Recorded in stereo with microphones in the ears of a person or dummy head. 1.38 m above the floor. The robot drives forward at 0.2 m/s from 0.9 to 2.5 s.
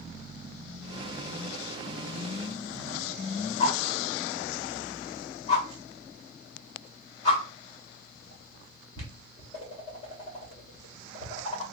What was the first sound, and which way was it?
A whoosh, 35° left (ahead or behind).